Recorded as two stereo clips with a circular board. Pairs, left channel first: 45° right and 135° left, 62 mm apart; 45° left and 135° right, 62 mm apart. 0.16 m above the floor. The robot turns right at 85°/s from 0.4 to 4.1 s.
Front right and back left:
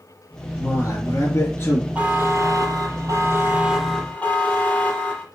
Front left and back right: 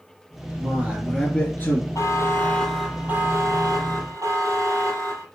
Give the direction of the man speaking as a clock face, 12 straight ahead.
3 o'clock.